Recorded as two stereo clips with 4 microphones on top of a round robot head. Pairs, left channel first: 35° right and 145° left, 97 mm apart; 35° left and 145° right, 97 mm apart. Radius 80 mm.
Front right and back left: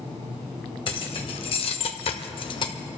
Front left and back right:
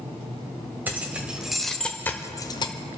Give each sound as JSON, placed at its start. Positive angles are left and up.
{"t": 0.9, "sound": "keys jangling", "azimuth_deg": -70, "distance_m": 1.6}